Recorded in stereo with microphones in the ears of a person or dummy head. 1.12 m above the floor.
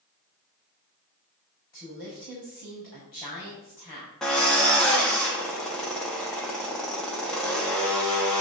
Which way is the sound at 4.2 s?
5° left (ahead or behind).